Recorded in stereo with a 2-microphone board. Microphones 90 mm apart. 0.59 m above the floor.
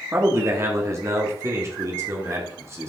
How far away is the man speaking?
About 1.3 m.